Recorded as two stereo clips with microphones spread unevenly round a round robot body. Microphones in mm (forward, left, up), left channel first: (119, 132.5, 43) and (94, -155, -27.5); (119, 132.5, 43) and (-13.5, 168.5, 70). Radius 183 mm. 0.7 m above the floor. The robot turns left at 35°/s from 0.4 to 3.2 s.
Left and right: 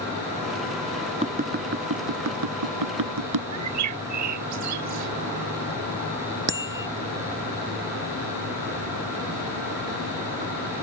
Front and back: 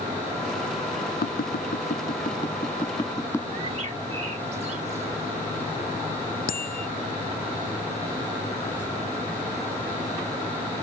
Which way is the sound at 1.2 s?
25° right.